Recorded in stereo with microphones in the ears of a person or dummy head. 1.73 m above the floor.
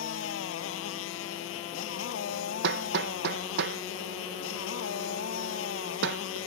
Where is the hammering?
65° right (ahead or behind).